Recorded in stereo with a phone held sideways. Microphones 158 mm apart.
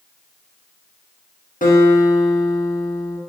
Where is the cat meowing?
I don't hear a cat meowing.